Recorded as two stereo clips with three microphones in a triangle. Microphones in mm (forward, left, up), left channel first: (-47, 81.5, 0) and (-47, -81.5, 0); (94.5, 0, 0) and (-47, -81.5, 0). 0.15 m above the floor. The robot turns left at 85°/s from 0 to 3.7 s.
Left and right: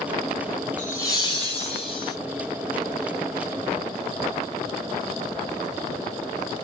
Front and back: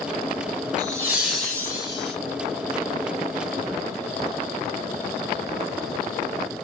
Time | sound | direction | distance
0.8 | laughter | 170° left | 1.9 m